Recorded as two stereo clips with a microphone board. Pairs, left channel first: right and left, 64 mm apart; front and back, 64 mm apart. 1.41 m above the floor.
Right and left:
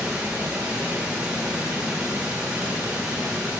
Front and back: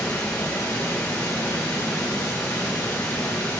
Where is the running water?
20° left, 1.7 m.